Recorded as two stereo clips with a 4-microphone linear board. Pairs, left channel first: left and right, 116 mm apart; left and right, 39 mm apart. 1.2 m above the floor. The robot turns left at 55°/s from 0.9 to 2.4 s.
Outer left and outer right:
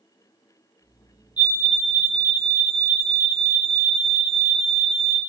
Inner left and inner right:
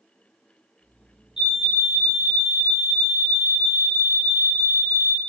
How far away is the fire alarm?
About 0.9 m.